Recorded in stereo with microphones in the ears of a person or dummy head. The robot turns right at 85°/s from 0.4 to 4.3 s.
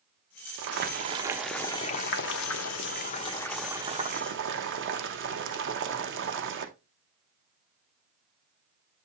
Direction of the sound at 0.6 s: 75° right.